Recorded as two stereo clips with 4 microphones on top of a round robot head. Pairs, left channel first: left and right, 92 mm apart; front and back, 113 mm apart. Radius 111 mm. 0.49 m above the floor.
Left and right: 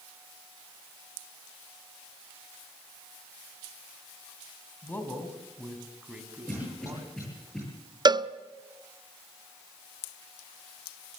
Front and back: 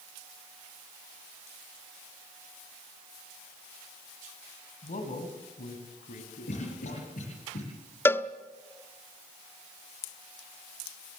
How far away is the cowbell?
About 0.8 m.